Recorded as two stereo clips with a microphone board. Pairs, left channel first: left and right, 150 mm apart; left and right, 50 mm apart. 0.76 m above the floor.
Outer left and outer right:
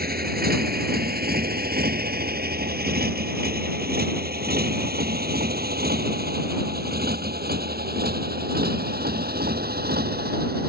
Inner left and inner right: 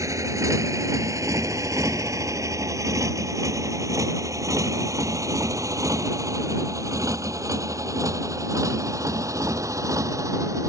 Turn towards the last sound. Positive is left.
turn(degrees=-85)